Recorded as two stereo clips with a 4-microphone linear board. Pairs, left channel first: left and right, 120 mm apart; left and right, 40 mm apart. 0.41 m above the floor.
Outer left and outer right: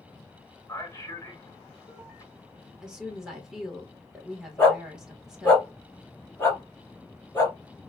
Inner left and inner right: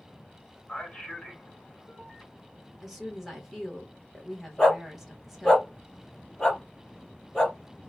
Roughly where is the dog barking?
Centre.